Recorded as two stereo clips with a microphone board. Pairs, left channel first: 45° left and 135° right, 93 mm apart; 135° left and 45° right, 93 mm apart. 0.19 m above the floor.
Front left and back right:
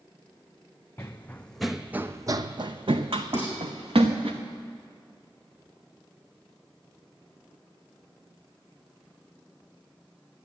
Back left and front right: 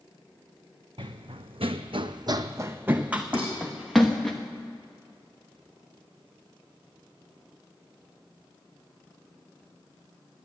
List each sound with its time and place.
1.0 s running footsteps: 20° right, 0.8 m; by 4.3 s 140° right, 1.5 m
3.3 s dishes clattering: 70° right, 6.5 m